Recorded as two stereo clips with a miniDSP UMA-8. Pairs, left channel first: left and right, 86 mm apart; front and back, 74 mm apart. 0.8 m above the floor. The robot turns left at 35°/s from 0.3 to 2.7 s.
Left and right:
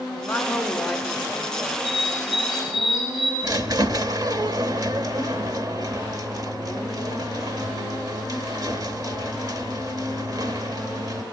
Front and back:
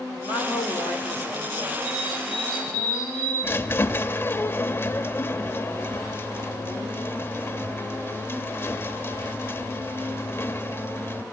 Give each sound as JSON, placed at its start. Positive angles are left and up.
{"t": 0.2, "sound": "a woman speaking", "azimuth_deg": 15, "distance_m": 3.5}
{"t": 1.8, "sound": "a bird", "azimuth_deg": -75, "distance_m": 7.0}
{"t": 3.4, "sound": "a squeak", "azimuth_deg": -55, "distance_m": 0.9}